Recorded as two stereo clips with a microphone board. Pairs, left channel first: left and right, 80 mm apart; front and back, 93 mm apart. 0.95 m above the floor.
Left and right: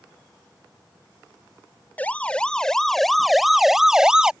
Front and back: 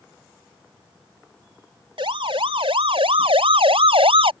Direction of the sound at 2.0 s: 160° left.